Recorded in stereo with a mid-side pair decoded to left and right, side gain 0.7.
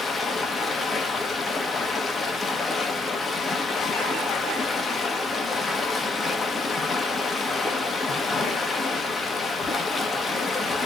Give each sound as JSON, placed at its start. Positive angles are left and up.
{"t": 0.0, "sound": "running water", "azimuth_deg": 25, "distance_m": 0.9}